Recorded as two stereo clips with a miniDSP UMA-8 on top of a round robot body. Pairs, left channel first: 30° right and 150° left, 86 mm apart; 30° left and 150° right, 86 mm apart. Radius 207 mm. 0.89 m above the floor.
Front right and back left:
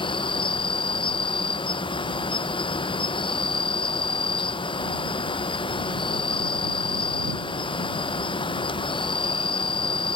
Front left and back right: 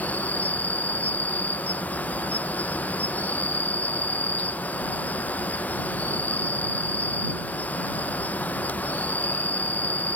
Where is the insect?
40° right.